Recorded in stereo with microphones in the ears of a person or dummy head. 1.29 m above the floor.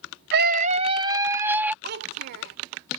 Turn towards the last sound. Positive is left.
turn(degrees=-60)  # may be behind; listen again after turning